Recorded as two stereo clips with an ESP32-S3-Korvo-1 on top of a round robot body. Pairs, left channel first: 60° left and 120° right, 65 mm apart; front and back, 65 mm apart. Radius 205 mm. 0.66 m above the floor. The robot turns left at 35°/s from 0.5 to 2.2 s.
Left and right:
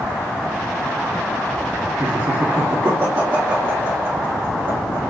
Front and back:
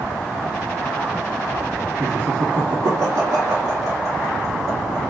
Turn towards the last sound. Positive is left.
turn(degrees=-155)